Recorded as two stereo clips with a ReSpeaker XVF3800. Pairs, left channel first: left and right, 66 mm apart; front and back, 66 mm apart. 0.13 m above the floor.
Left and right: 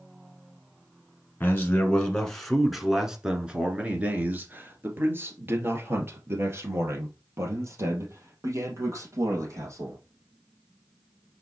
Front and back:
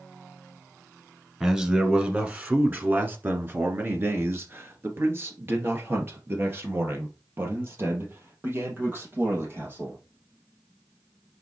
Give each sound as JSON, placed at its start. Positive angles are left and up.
{"t": 1.4, "sound": "a man speaking", "azimuth_deg": 115, "distance_m": 1.4}